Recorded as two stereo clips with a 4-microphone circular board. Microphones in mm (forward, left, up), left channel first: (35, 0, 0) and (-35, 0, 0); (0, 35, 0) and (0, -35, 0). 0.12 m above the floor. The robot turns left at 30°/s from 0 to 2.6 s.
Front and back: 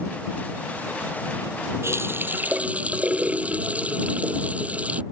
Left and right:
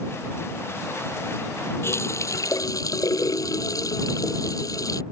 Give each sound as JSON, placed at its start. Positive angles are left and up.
{"t": 1.8, "sound": "a running tap", "azimuth_deg": 135}